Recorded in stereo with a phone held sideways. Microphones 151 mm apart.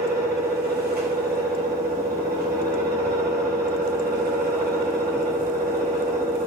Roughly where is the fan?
Right.